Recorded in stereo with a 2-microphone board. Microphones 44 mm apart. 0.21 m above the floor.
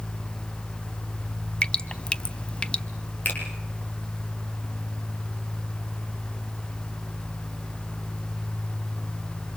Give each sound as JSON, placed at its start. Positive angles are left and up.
{"t": 1.6, "sound": "dripping", "side_deg": 20, "distance_m": 1.0}
{"t": 3.2, "sound": "a finger snap", "side_deg": 40, "distance_m": 8.0}